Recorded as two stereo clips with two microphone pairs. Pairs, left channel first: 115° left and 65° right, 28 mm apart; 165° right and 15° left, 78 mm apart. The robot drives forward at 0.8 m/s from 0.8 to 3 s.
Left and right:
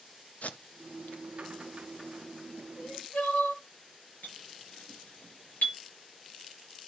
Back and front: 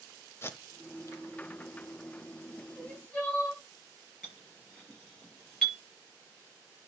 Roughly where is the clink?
Left.